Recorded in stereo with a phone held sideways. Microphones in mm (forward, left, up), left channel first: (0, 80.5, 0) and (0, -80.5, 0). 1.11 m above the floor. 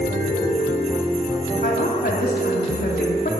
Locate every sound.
1.6 s a woman speaking: 80° left, 2.5 m